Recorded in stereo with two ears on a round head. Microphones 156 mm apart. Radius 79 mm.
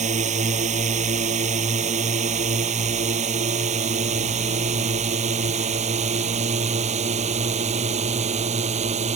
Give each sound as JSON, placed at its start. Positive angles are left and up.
{"t": 0.0, "sound": "a drone", "side_deg": -45}